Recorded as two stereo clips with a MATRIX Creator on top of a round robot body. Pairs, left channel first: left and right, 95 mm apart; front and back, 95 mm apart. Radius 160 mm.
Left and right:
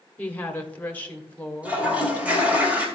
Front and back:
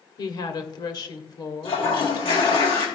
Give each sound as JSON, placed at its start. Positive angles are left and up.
{"t": 0.2, "sound": "a woman speaking", "azimuth_deg": 20, "distance_m": 1.7}
{"t": 1.6, "sound": "a toilet flushing", "azimuth_deg": -15, "distance_m": 3.0}